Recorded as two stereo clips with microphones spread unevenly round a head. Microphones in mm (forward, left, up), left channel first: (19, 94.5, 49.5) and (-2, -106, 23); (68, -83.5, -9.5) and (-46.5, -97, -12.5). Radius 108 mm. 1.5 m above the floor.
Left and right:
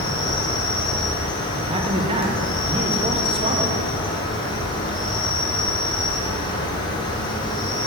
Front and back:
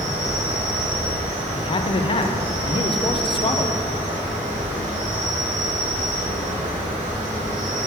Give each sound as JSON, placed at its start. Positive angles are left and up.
{"t": 0.0, "sound": "an insect", "azimuth_deg": 155, "distance_m": 0.9}
{"t": 1.6, "sound": "a man speaking", "azimuth_deg": -30, "distance_m": 0.6}